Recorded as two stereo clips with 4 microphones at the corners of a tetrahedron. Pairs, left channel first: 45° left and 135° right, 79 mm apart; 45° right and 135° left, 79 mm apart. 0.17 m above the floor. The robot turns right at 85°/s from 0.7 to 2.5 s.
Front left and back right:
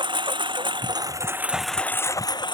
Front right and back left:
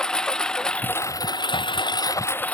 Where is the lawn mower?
125° right; by 2.5 s 25° left.